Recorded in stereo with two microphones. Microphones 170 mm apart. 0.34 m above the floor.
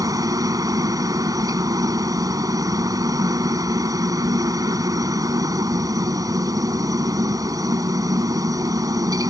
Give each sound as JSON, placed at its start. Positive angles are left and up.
{"t": 0.0, "sound": "a helicopter", "side_deg": -20}